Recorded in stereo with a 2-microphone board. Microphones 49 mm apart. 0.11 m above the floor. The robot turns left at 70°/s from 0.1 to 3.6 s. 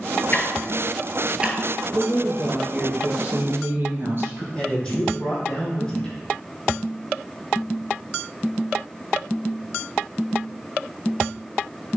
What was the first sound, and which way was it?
Ticking, 40° left (ahead or behind).